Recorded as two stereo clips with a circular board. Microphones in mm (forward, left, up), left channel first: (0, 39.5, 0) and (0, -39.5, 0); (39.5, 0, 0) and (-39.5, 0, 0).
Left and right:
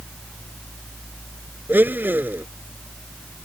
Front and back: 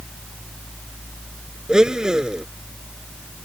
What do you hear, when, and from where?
1.7 s a blender: 110° right